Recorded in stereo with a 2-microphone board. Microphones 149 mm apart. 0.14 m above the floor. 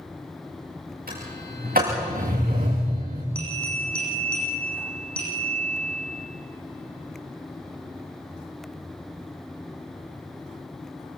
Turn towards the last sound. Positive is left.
turn(degrees=5)  # may be behind; listen again after turning